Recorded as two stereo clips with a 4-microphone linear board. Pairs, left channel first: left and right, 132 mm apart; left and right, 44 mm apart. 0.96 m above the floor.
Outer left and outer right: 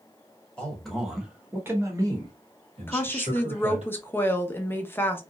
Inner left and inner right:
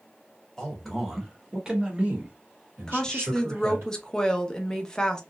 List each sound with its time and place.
0.6 s a man speaking: 10° left (ahead or behind), 1.3 m; by 3.9 s 65° right (ahead or behind), 1.5 m
2.9 s a woman speaking: 15° left (ahead or behind), 0.6 m